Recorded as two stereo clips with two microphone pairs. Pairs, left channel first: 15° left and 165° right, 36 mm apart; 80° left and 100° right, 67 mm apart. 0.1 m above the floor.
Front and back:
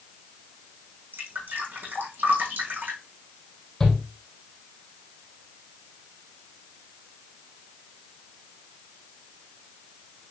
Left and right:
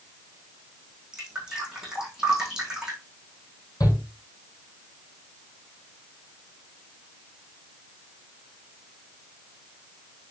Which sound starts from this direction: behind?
Dripping, at 1.1 s.